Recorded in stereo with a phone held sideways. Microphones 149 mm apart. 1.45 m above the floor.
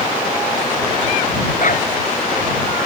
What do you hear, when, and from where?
1.6 s a dog barking: 60° left (ahead or behind)